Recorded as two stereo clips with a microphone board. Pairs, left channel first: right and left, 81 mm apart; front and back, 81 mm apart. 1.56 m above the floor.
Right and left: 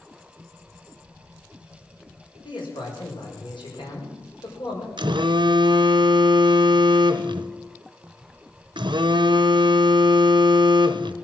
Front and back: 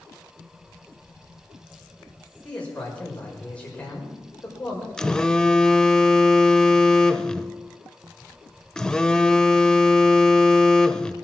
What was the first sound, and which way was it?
A man speaking, 75° right.